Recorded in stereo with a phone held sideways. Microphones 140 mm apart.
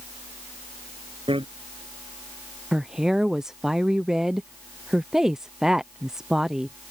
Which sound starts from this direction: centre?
A woman speaking, at 2.7 s.